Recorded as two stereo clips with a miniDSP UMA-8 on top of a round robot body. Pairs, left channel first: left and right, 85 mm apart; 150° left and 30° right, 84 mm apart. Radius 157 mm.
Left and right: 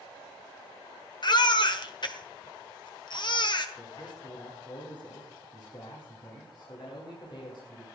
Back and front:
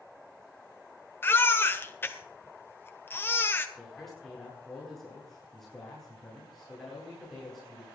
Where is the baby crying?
90° left, 1.7 m.